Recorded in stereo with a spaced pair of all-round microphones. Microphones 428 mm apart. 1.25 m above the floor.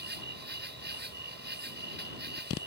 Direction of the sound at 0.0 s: 25° right (ahead or behind).